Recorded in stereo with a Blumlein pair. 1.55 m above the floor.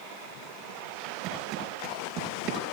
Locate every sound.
1.2 s footsteps: 35° right, 5.5 m